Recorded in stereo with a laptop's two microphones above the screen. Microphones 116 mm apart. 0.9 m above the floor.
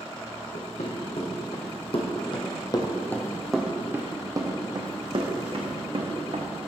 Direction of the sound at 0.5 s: 70° left (ahead or behind).